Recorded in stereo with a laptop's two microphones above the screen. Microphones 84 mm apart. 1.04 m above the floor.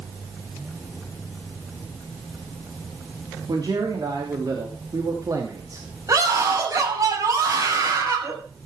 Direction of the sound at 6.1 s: 45° right (ahead or behind).